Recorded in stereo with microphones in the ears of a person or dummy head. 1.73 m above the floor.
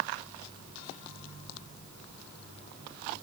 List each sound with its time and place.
Only background noise.